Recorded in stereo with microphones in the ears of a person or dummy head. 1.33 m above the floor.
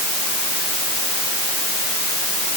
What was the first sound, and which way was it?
Only background noise.